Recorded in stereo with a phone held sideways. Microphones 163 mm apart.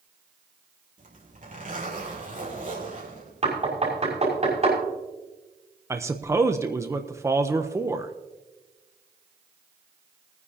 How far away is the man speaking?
About 0.7 m.